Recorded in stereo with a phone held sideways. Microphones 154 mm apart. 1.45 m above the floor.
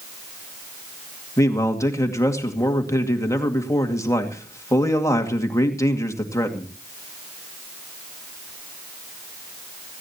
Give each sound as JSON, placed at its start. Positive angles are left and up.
{"t": 1.4, "sound": "a man speaking", "side_deg": 20, "distance_m": 2.0}